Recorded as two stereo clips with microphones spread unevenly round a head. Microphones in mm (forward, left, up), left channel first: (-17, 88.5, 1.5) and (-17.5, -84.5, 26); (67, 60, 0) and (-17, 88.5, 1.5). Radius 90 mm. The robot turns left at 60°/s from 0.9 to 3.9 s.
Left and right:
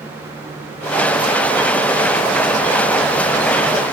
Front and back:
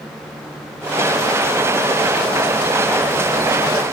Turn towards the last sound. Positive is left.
No sound to turn to.